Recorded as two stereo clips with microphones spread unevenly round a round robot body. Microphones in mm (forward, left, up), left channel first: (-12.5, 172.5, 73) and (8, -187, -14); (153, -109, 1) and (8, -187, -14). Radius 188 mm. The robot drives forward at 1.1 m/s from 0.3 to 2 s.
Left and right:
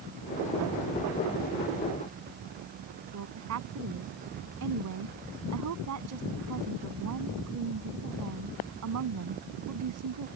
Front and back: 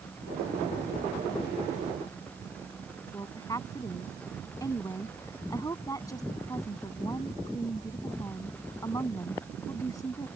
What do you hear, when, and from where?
3.1 s a woman speaking: 40° right